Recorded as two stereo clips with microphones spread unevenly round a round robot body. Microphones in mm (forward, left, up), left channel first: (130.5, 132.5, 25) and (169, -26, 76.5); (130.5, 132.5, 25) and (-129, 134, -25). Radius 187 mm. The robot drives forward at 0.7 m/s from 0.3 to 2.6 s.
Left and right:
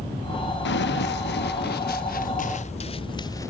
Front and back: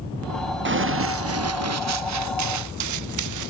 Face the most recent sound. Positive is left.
turn(degrees=-170)